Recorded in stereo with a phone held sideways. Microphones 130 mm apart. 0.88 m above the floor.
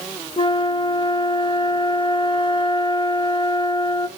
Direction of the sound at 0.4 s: 40° left (ahead or behind).